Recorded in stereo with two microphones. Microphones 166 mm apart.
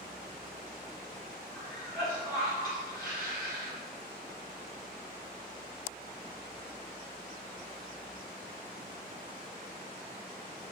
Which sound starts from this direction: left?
A cough, at 1.5 s.